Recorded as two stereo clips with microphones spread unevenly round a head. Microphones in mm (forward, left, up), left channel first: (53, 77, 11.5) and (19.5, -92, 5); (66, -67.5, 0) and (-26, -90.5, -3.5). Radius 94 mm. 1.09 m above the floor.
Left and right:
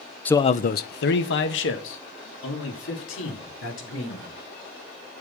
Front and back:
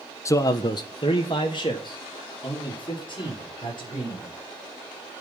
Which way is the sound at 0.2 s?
Straight ahead.